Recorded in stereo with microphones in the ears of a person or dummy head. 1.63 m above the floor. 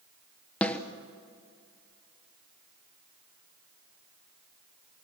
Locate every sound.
0.6 s a snare drum: 10° left (ahead or behind), 1.3 m